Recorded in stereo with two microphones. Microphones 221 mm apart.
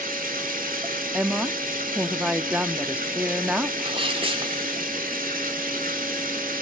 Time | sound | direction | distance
0.0 | running water | 40° right (ahead or behind) | 1.7 m
1.1 | a woman speaking | 5° right (ahead or behind) | 0.9 m
3.8 | a sneeze | 25° right (ahead or behind) | 1.7 m